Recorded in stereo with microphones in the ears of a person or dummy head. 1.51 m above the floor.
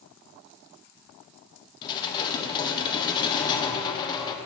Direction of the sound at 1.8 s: 25° left (ahead or behind).